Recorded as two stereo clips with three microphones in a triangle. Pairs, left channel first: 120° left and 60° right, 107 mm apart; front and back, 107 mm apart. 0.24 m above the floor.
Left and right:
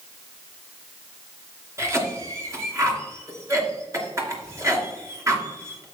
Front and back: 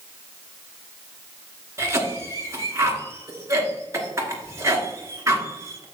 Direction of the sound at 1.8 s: 120° right.